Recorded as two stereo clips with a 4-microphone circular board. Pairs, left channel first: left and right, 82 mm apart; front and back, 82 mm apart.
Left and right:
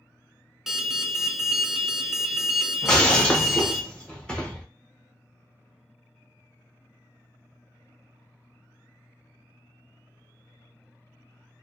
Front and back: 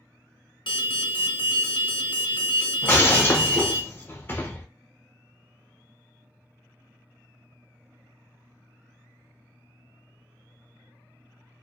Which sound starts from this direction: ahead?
An alarm, at 0.7 s.